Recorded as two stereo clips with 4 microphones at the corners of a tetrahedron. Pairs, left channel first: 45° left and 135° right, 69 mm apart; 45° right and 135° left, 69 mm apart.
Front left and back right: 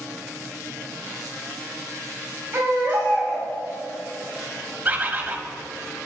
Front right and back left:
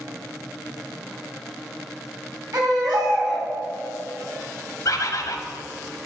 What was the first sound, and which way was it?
A baby crying, 165° left.